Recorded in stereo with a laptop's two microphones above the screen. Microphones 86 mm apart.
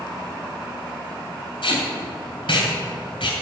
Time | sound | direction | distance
1.6 | tape being pulled | 80° left | 2.5 m